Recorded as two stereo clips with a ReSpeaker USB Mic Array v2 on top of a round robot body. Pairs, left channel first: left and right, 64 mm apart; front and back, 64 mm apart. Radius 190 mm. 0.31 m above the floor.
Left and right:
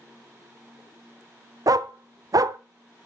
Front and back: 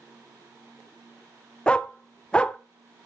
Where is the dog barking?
75° right, 0.6 m.